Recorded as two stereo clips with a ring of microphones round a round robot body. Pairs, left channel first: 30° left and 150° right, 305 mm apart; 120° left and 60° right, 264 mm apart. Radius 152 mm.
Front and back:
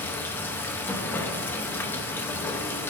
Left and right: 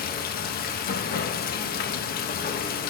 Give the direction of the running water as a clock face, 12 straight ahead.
8 o'clock.